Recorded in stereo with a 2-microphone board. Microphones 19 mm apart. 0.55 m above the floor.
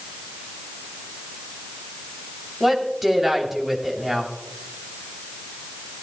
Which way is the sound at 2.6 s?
15° right (ahead or behind).